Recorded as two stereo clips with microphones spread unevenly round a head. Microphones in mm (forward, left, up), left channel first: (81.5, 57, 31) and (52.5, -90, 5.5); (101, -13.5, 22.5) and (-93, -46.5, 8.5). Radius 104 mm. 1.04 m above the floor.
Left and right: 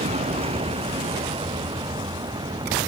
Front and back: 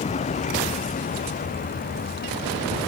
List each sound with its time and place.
0.0 s a vehicle: 50° right; by 2.9 s 35° right